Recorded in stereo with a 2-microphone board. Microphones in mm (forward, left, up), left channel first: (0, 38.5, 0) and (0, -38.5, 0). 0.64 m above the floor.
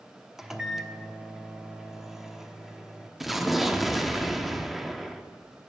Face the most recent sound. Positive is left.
turn(degrees=0)  # may be behind; listen again after turning